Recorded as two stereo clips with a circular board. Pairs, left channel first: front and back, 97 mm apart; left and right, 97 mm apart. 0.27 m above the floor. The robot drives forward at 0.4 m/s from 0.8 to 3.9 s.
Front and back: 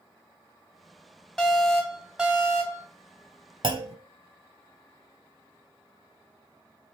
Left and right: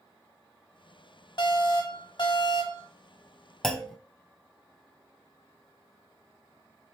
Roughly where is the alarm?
Left.